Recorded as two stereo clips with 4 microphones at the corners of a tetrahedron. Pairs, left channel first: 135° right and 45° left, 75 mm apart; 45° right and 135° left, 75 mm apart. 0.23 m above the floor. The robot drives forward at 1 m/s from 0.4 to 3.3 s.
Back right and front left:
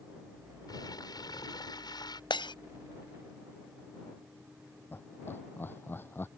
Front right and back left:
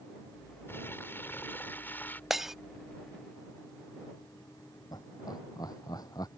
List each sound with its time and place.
0.7 s crumpling: 105° right; by 2.2 s 110° right
2.3 s breaking glass: 140° right
4.9 s laughter: 75° right